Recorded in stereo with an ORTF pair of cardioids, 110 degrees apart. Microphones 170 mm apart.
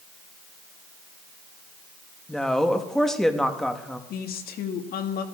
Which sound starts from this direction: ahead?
A woman speaking, at 2.3 s.